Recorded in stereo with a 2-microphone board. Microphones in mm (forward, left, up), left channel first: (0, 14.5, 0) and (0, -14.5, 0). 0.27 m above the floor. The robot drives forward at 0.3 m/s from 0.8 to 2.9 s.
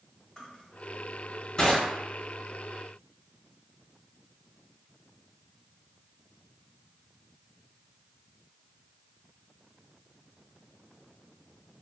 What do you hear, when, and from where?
0.4 s crushing: 15° left (ahead or behind), 1.1 m